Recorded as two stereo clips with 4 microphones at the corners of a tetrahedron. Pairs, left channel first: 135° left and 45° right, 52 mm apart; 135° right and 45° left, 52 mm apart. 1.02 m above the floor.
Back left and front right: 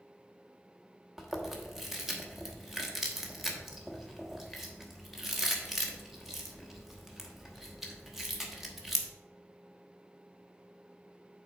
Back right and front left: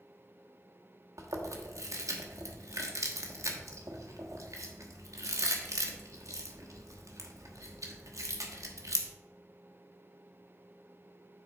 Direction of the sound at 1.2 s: 40° left.